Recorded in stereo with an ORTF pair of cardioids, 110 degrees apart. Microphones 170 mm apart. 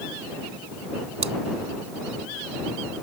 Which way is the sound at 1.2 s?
40° right.